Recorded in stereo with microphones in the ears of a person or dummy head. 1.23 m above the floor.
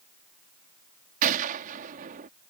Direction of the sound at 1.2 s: 50° right (ahead or behind).